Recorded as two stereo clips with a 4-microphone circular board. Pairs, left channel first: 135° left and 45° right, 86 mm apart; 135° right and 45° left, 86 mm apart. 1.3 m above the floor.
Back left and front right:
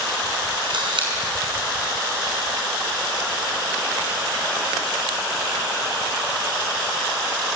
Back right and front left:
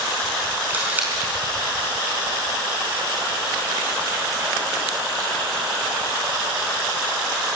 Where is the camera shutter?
25° right, 4.5 m.